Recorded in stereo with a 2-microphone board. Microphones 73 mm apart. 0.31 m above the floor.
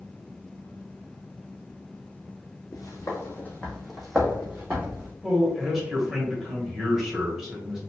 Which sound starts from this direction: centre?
A man speaking, at 5.2 s.